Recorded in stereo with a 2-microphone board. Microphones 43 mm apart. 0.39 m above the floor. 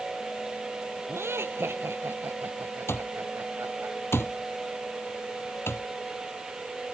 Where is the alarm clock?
60° left (ahead or behind).